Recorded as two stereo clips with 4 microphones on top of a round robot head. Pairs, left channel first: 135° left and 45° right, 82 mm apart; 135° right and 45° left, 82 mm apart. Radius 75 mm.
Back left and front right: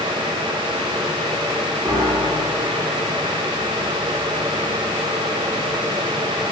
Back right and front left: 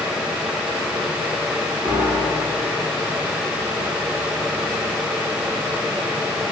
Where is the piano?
20° left, 3.5 m.